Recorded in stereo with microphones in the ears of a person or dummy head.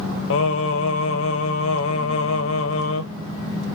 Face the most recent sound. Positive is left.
turn(degrees=80)